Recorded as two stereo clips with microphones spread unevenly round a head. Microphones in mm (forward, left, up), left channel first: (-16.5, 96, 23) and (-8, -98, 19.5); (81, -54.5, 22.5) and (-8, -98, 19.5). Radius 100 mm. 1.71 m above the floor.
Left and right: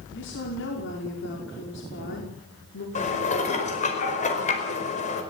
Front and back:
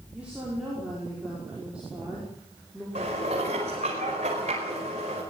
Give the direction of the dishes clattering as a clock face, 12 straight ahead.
7 o'clock.